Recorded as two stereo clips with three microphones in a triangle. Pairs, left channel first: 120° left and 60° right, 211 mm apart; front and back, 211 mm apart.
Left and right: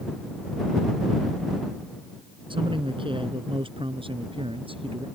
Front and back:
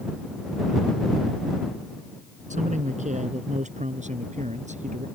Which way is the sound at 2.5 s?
125° right.